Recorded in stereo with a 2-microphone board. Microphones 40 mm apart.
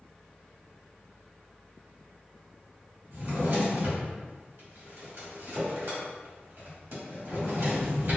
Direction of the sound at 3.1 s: 75° right (ahead or behind).